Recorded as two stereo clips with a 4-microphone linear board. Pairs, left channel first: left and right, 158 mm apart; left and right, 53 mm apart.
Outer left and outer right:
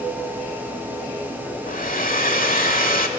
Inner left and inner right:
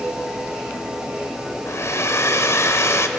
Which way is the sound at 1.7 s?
70° left (ahead or behind).